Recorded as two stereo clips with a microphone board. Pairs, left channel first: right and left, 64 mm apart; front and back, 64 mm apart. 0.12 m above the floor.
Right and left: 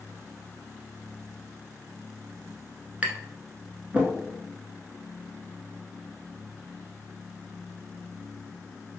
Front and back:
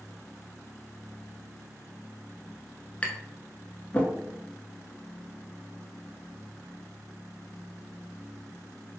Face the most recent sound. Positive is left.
turn(degrees=45)